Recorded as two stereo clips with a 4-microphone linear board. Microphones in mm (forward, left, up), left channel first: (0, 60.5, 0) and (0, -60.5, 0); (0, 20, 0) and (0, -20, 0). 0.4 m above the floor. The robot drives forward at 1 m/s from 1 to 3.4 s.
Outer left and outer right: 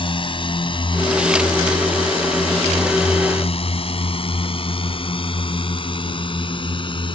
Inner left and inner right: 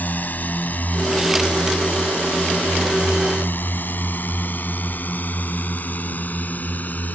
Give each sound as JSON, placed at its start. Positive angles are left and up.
{"t": 0.0, "sound": "a drone", "side_deg": 45}